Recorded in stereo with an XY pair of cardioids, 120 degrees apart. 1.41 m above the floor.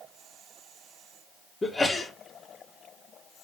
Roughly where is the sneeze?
Ahead.